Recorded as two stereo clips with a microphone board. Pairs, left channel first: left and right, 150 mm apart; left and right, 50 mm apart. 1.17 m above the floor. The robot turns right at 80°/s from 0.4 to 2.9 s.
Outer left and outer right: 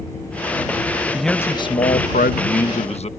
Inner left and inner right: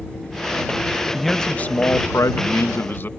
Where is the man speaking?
5° right; by 3.1 s 135° left.